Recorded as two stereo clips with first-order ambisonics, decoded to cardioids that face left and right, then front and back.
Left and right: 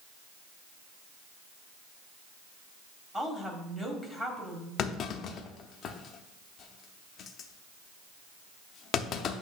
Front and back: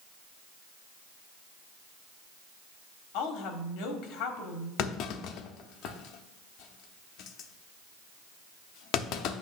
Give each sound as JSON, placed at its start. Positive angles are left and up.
{"t": 3.1, "sound": "a woman speaking", "azimuth_deg": -5, "distance_m": 1.2}
{"t": 4.8, "sound": "a clunk", "azimuth_deg": 35, "distance_m": 0.6}